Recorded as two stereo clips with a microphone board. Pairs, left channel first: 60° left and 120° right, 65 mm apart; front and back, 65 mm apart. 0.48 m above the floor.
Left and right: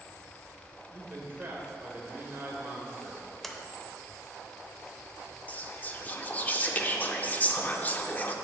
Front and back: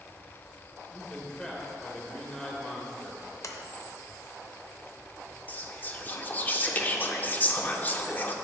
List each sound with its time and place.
0.9 s a man speaking: 75° right, 1.8 m
3.4 s a sliding door: 30° right, 0.8 m
5.5 s whispering: 25° left, 0.8 m